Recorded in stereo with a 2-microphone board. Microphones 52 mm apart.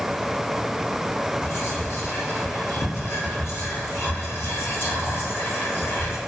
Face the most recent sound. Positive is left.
turn(degrees=55)  # may be behind; listen again after turning